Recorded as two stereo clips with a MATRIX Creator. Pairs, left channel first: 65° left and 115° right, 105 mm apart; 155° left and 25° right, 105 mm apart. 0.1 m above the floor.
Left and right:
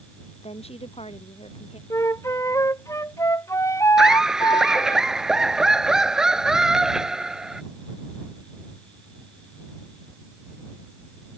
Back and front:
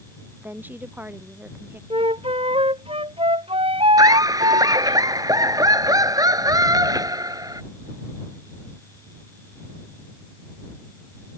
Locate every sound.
0.4 s a woman speaking: 50° left
1.9 s a flute: 5° left
4.0 s laughter: 35° right